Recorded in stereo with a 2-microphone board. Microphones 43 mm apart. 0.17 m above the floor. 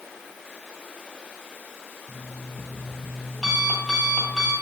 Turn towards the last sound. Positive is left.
turn(degrees=15)  # may be behind; listen again after turning